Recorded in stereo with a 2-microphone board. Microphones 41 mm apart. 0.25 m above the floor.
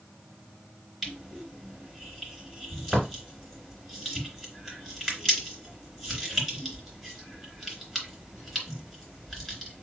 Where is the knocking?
No knocking in this recording.